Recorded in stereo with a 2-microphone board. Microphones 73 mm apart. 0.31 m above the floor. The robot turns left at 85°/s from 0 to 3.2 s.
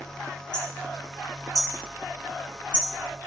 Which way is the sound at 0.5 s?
85° left.